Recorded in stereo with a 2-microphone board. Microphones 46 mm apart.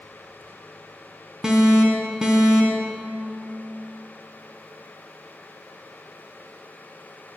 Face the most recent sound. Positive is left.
turn(degrees=-15)  # may be behind; listen again after turning